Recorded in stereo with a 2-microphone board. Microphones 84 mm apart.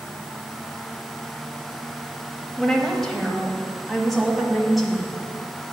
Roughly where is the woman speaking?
Centre.